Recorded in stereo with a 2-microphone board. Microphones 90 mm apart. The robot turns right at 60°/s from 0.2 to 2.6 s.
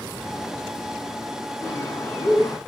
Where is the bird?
60° left, 1.2 m; by 2.6 s 120° left, 1.2 m.